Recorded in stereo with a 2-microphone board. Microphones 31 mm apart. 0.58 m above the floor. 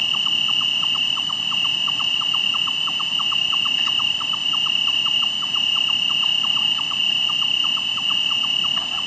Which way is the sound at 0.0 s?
15° left (ahead or behind).